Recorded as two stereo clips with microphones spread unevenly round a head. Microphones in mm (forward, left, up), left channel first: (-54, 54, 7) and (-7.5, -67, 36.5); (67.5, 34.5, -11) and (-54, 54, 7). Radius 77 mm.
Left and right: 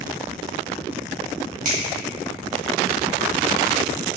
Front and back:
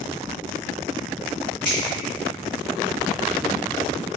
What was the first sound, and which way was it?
A finger snap, 85° right.